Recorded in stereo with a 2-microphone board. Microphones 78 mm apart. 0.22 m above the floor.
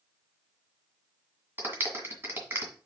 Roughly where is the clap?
Right.